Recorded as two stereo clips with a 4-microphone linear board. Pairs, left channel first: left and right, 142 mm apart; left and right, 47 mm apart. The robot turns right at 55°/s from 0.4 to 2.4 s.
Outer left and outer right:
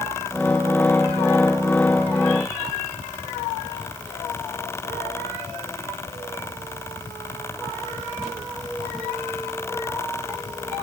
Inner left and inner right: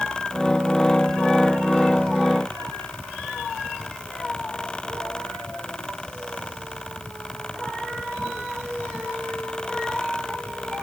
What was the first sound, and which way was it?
Only background noise.